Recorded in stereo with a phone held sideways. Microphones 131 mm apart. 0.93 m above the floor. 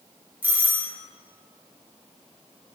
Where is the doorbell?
15° right (ahead or behind), 1.1 m.